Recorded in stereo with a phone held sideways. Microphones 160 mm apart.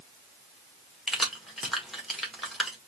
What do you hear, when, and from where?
1.1 s keys jangling: centre (ahead or behind), 1.4 m